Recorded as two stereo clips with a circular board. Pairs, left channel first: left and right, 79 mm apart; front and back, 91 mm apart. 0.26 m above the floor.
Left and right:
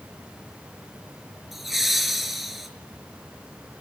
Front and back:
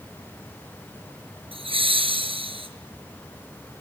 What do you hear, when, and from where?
1.5 s laughter: straight behind, 5.5 m